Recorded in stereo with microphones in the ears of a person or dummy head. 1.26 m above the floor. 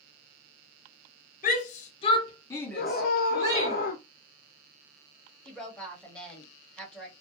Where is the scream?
45° left (ahead or behind), 0.6 m.